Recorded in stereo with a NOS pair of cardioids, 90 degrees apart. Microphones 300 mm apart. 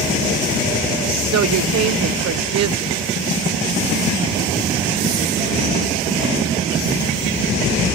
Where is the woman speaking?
60° right.